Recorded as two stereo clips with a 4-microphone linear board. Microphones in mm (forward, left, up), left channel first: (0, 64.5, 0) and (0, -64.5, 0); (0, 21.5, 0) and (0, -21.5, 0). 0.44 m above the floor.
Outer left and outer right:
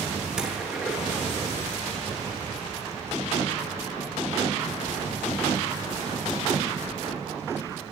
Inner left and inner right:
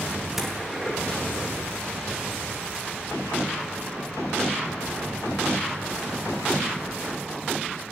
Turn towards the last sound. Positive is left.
turn(degrees=-5)  # may be behind; listen again after turning